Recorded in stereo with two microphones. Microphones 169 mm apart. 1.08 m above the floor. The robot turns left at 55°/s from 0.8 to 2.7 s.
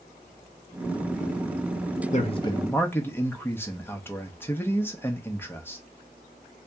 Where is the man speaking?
45° left, 0.8 m; by 5.8 s 15° left, 0.8 m.